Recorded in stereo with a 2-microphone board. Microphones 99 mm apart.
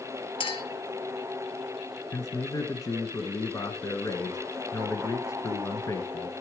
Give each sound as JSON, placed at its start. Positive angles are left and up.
{"t": 0.4, "sound": "a clink", "side_deg": 60, "distance_m": 2.0}
{"t": 2.1, "sound": "a man speaking", "side_deg": 35, "distance_m": 1.3}